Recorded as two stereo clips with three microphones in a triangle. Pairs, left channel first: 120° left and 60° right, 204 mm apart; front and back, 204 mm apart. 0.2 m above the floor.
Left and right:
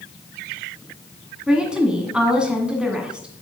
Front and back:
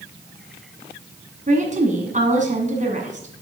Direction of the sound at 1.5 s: 145° right.